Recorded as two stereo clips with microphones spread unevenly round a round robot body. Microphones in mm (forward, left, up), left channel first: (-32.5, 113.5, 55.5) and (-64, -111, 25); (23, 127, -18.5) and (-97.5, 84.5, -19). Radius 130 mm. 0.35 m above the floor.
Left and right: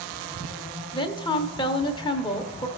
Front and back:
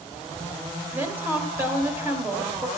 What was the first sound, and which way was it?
A woman speaking, 145° left.